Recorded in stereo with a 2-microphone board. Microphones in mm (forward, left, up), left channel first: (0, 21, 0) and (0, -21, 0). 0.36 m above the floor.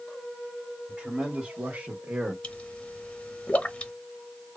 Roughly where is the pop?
Left.